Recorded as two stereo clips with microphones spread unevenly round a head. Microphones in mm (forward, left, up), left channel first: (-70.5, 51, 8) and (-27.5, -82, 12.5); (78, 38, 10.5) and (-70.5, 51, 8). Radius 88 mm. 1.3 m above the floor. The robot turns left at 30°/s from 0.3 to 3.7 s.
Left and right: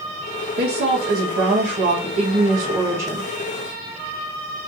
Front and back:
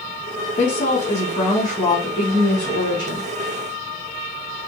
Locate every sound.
0.6 s a woman speaking: 60° right, 1.8 m; by 3.3 s 140° right, 1.8 m